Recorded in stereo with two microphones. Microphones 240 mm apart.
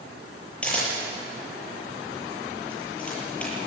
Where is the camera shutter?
5° left (ahead or behind), 8 m.